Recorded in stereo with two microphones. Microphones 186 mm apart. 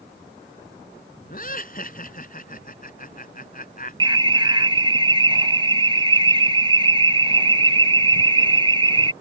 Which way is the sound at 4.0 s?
25° right (ahead or behind).